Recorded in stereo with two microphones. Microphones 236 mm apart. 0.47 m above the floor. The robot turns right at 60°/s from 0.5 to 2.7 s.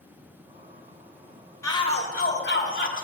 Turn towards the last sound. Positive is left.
turn(degrees=80)